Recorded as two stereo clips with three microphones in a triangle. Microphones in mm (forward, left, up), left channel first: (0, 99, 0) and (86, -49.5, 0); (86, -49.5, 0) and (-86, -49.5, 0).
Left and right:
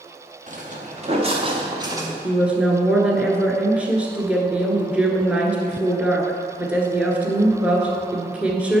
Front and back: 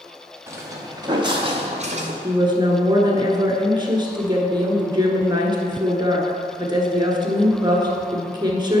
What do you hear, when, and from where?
0.5 s footsteps: 105° right, 1.7 m; by 2.1 s 135° right, 1.3 m
2.2 s a woman speaking: 135° right, 1.2 m